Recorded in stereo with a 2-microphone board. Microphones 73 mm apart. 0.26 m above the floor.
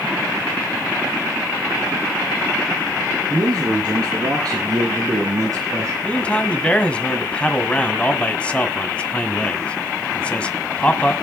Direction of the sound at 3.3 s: 70° right (ahead or behind).